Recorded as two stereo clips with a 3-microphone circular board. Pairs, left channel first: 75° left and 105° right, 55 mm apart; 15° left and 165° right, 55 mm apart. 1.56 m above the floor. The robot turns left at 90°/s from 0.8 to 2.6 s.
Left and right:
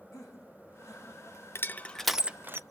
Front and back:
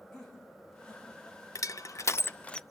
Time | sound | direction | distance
0.1 | laughter | 90° left | 5 m
1.6 | crushing | 30° left | 0.6 m